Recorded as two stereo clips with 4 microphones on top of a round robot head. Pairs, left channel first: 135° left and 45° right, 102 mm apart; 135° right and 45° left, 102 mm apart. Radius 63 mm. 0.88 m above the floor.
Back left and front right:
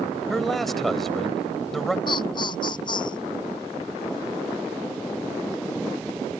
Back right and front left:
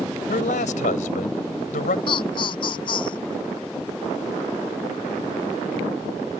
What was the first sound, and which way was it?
A man speaking, 135° right.